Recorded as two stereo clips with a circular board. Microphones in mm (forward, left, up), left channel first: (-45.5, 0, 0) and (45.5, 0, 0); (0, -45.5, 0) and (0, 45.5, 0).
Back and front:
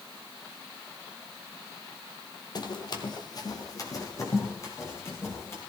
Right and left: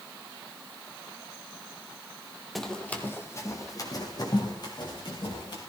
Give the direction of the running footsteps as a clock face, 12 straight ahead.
6 o'clock.